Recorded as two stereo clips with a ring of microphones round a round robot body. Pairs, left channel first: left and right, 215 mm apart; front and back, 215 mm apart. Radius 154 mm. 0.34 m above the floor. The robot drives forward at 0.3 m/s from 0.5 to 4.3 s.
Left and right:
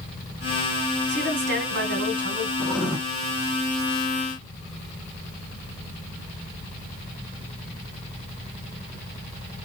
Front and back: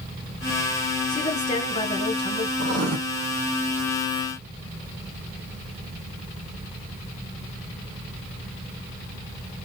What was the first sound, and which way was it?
A woman speaking, 65° right.